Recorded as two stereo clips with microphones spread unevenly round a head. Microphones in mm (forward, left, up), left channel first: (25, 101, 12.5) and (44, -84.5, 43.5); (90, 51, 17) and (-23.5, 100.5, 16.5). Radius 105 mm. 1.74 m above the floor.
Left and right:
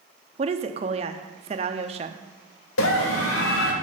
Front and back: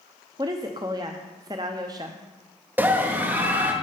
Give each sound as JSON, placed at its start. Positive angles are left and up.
{"t": 0.4, "sound": "a woman speaking", "azimuth_deg": -135, "distance_m": 0.6}
{"t": 2.8, "sound": "a scream", "azimuth_deg": 80, "distance_m": 2.5}